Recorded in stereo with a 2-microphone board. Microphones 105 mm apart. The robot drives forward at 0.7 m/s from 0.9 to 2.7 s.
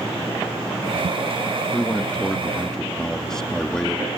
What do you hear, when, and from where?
1.7 s a man speaking: 10° left (ahead or behind); by 4.1 s 5° left (ahead or behind)